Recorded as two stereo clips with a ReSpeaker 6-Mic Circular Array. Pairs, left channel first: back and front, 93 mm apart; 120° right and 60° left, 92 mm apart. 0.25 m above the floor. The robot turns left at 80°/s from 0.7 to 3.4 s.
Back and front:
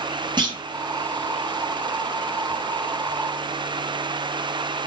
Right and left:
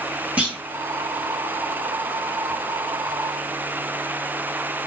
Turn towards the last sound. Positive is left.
turn(degrees=130)